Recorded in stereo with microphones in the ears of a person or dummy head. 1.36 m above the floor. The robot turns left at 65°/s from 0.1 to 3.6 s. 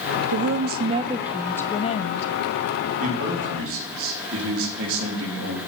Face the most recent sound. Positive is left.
turn(degrees=-75)